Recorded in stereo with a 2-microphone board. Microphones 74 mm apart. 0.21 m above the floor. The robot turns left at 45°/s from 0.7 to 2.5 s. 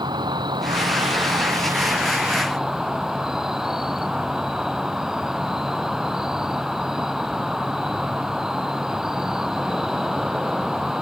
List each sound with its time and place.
0.0 s an insect: 90° right; by 11.0 s 175° right